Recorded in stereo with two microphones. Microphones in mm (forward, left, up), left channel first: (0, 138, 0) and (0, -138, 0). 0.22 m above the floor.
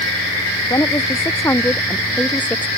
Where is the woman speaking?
15° left (ahead or behind); by 2.7 s 5° left (ahead or behind).